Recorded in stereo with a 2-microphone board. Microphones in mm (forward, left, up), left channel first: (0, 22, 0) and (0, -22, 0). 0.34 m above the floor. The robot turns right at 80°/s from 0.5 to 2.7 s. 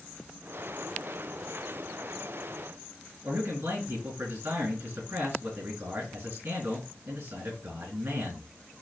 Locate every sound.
3.2 s a man speaking: 70° right (ahead or behind), 5 m